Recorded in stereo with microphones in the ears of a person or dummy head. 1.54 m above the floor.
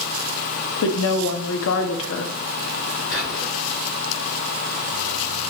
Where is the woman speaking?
70° left (ahead or behind), 0.6 m.